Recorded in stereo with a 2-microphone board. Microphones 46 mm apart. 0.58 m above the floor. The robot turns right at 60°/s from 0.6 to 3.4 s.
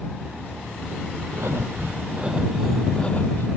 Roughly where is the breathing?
Right.